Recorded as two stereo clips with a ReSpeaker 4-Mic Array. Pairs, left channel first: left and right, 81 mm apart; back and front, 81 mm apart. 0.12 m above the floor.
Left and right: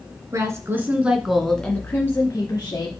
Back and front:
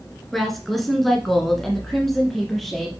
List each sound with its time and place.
0.3 s a woman speaking: 95° right, 1.8 m; by 2.9 s 95° left, 2 m